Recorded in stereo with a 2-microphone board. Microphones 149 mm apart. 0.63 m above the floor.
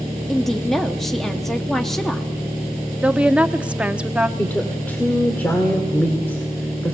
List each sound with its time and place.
0.3 s a woman speaking: centre (ahead or behind), 0.7 m
3.0 s a woman speaking: 10° right (ahead or behind), 0.7 m
4.4 s a woman speaking: 10° left (ahead or behind), 2 m